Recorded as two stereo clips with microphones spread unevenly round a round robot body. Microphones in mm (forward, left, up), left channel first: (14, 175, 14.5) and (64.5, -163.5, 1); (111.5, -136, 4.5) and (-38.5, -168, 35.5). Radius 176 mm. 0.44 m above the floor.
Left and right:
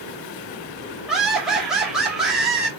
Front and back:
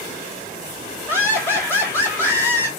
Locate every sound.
1.1 s laughter: straight ahead, 1.2 m